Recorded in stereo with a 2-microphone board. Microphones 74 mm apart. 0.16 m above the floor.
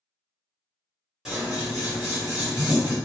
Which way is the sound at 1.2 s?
5° right (ahead or behind).